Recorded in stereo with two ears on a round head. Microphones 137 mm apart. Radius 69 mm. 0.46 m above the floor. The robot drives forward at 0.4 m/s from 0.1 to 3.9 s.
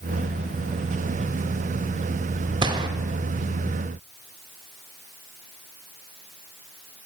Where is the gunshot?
30° right (ahead or behind), 1.5 m.